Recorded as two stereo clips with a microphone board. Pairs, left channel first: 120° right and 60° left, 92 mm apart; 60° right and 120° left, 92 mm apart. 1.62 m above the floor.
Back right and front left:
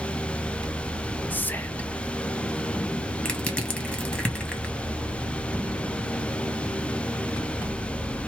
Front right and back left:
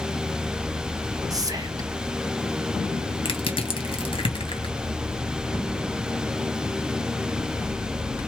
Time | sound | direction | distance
1.3 | whispering | 170° left | 0.9 m
3.2 | crushing | 45° right | 1.4 m